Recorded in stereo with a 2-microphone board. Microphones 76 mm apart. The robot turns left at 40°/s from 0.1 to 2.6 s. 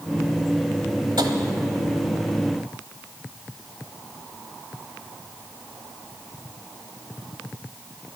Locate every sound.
1.2 s tapping: 70° right (ahead or behind), 1.1 m; by 1.3 s 65° right (ahead or behind), 1.1 m